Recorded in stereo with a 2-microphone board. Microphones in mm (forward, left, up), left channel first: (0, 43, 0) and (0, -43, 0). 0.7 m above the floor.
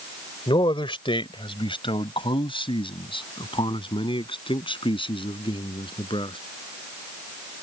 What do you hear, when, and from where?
0.5 s a man speaking: 70° left (ahead or behind); by 6.4 s 75° left (ahead or behind)